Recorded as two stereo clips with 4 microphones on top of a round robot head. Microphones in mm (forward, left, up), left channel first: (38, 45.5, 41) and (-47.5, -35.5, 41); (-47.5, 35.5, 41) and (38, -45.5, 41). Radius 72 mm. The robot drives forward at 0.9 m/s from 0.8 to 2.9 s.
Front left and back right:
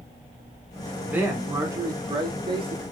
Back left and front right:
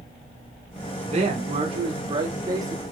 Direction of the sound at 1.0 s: 60° right.